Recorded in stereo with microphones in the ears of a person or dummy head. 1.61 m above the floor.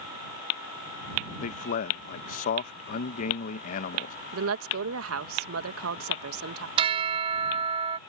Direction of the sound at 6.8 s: 30° right (ahead or behind).